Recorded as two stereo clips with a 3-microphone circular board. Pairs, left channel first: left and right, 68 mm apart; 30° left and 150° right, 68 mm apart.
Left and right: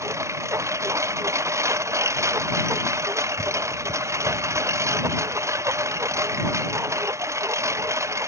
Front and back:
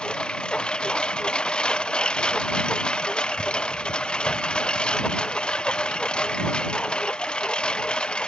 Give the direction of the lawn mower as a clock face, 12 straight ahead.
2 o'clock.